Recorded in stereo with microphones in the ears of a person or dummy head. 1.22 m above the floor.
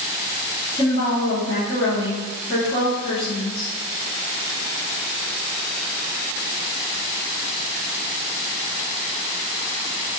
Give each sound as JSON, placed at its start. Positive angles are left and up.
{"t": 0.8, "sound": "a woman speaking", "side_deg": 25, "distance_m": 1.1}